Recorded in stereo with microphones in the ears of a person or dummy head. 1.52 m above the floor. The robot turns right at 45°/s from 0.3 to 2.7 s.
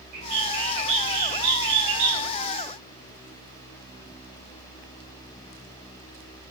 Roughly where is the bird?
Behind.